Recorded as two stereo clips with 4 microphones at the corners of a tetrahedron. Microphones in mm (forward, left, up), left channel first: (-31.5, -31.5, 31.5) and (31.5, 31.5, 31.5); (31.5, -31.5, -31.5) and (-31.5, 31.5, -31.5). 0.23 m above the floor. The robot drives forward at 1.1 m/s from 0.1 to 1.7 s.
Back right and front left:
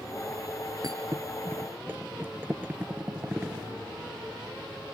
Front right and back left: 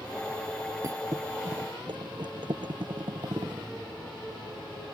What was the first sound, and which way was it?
A thud, 85° left.